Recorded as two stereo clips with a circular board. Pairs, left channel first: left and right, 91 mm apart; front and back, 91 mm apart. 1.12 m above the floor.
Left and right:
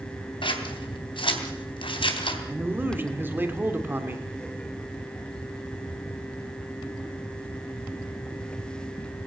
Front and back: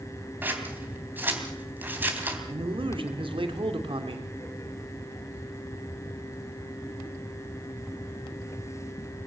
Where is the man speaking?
160° right, 2.5 m.